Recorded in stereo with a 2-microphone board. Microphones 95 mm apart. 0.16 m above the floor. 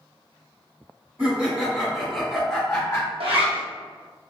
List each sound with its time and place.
1.2 s laughter: 20° right (ahead or behind), 1.5 m; by 3.1 s 20° left (ahead or behind), 1.6 m
3.2 s a zipper: 80° right, 1.0 m